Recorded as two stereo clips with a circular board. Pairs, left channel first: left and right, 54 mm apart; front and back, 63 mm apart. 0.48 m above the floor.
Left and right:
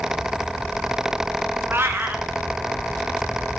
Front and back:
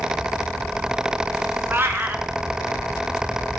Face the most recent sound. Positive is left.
turn(degrees=-130)